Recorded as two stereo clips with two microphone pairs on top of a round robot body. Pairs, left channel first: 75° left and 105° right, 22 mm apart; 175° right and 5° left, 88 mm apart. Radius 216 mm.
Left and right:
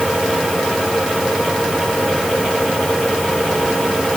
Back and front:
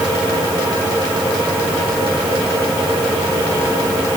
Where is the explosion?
No explosion in this recording.